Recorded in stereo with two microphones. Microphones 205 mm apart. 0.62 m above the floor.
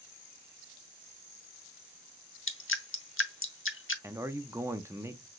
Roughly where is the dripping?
Left.